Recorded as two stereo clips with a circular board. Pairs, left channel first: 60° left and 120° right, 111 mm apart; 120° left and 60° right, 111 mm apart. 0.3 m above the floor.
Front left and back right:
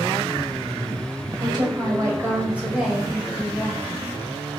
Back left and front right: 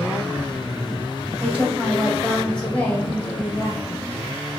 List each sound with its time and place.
1.4 s a woman speaking: 130° right, 2 m; by 4.1 s 95° left, 2 m